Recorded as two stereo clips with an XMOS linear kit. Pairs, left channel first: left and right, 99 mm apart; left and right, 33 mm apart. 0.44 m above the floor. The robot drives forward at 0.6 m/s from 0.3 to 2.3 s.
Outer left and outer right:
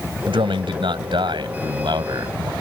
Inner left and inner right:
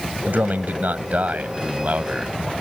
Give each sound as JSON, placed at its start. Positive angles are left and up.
{"t": 0.3, "sound": "a man speaking", "side_deg": -65}